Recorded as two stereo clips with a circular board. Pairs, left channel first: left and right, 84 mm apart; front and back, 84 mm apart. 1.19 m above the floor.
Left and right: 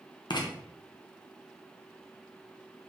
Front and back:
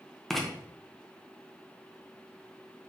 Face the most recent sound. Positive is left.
turn(degrees=90)